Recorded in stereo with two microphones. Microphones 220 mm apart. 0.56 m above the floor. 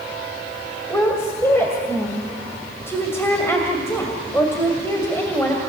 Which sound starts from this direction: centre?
A woman speaking, at 0.9 s.